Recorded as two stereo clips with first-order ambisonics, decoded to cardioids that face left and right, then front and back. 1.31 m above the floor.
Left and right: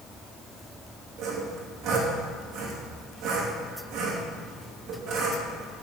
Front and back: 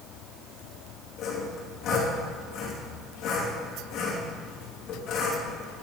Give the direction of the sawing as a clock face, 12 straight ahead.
2 o'clock.